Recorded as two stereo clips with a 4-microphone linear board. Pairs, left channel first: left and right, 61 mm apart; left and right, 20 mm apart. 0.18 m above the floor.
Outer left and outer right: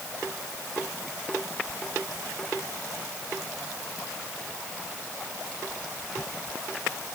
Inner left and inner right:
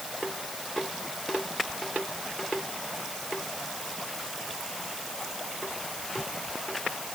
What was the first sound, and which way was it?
Only background noise.